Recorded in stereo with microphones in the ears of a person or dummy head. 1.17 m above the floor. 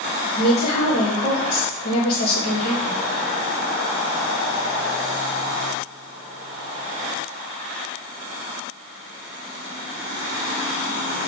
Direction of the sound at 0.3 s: 55° left (ahead or behind).